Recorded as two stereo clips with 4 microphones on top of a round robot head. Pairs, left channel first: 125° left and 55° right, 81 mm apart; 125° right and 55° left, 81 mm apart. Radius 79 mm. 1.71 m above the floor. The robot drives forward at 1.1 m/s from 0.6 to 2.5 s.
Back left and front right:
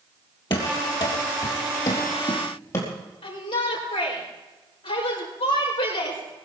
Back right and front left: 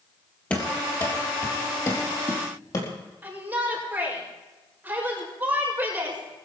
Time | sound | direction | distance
0.5 | running footsteps | 160° left | 3 m
3.2 | a shout | 120° left | 5 m